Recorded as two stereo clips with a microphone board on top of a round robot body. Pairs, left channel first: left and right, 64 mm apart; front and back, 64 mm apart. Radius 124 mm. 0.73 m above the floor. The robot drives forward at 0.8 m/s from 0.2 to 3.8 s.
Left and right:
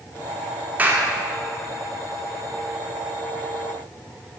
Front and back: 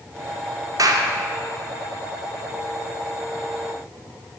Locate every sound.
0.8 s a clap: 155° right, 2 m; by 1.1 s 160° right, 2.5 m